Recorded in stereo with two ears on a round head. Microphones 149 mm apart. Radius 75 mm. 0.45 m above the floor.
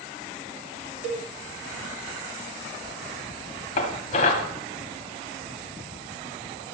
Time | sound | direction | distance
1.0 | a cowbell | 60° right (ahead or behind) | 1.3 m
3.8 | dishes clattering | 40° left (ahead or behind) | 1.9 m